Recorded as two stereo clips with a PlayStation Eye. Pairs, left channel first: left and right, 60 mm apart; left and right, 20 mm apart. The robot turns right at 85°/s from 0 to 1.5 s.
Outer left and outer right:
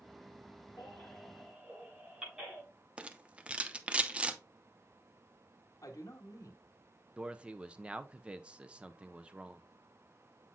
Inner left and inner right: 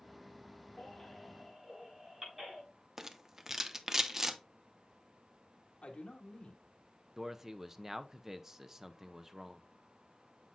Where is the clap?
No clap in this recording.